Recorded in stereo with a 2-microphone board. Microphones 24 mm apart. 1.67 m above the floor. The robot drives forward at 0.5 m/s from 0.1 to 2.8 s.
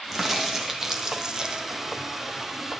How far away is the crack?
About 1.1 m.